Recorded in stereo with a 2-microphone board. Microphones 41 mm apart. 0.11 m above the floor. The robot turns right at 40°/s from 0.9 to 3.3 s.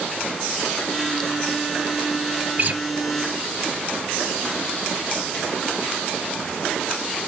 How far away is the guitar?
About 1.1 m.